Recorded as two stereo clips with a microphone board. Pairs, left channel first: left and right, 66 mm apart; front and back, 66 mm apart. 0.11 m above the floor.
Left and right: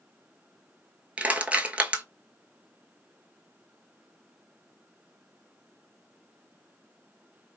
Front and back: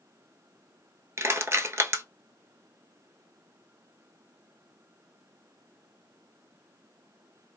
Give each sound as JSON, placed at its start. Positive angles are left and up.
{"t": 1.2, "sound": "crushing", "azimuth_deg": -150, "distance_m": 0.6}